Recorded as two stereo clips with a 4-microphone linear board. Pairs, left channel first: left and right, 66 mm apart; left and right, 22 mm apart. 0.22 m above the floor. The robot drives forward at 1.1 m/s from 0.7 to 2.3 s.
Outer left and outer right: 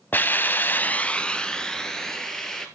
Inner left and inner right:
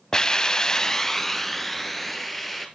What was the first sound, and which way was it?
A hiss, 30° left (ahead or behind).